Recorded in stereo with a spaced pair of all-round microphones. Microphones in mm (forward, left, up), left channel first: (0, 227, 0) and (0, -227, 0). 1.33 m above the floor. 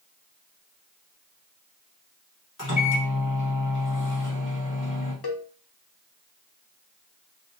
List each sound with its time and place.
2.6 s a microwave: 40° left (ahead or behind), 1.3 m
5.2 s a cowbell: 55° left (ahead or behind), 0.7 m